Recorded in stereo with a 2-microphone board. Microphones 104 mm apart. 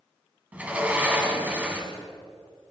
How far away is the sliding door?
About 3 m.